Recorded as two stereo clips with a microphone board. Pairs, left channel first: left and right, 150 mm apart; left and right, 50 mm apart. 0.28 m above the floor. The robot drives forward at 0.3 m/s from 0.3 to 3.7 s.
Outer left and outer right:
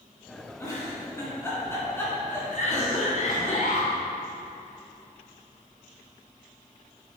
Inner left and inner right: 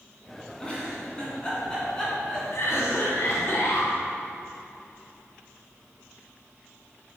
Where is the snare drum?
No snare drum in this recording.